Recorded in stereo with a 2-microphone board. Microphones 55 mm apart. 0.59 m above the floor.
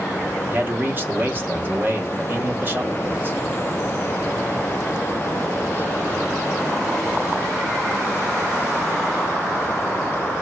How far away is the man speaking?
About 1.2 m.